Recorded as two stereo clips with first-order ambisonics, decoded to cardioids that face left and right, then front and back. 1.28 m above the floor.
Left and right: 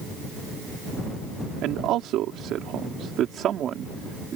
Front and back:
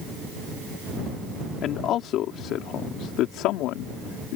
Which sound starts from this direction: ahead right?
A man speaking, at 1.6 s.